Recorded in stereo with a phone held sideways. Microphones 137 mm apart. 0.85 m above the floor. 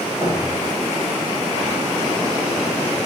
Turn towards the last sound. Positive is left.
turn(degrees=-20)  # may be behind; listen again after turning